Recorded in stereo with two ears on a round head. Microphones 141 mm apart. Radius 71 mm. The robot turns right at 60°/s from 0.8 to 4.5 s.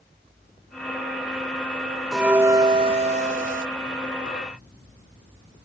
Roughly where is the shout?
No shout in this recording.